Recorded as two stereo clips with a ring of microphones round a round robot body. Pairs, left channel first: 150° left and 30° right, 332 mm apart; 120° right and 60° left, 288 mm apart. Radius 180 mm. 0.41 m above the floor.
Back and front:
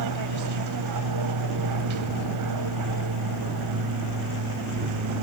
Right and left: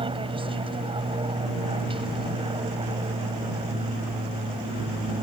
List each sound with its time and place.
0.0 s an aircraft: 10° right